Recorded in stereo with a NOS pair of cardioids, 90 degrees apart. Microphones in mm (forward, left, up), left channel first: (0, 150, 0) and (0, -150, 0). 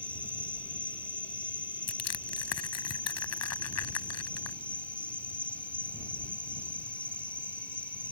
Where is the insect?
5° left.